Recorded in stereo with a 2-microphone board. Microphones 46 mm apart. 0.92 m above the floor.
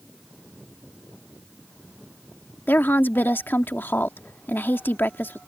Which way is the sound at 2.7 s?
50° left (ahead or behind).